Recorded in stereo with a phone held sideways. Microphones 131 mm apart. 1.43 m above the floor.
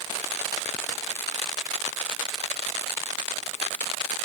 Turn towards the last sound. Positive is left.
No sound to turn to.